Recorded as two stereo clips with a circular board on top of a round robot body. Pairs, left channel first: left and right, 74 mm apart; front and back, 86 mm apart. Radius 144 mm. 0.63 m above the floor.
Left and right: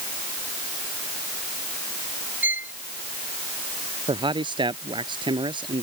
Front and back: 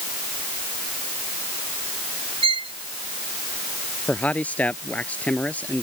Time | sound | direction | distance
2.4 | a violin | 160° right | ?
4.1 | a man speaking | 75° right | ?